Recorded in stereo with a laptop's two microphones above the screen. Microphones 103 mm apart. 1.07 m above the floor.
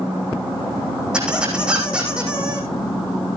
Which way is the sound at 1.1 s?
10° right (ahead or behind).